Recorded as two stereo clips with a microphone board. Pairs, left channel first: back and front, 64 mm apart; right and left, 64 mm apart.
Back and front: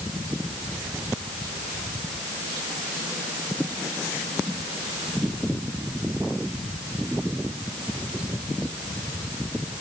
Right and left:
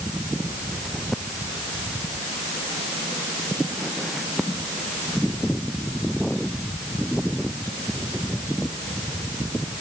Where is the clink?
I don't hear a clink.